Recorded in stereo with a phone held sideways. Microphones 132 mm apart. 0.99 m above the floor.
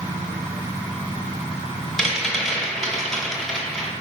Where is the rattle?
Centre (ahead or behind), 1.1 m.